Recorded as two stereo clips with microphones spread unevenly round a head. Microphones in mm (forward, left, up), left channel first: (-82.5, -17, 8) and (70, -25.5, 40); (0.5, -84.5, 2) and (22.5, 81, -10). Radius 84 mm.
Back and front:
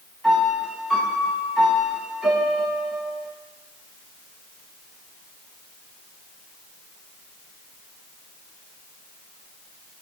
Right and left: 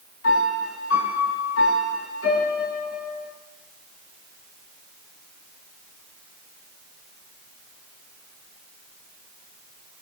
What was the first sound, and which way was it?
A piano, 95° right.